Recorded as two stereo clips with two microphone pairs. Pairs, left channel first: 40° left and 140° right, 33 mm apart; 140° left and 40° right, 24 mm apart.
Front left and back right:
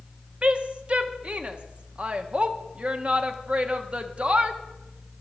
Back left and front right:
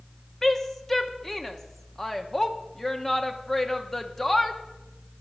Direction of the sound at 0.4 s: 150° right.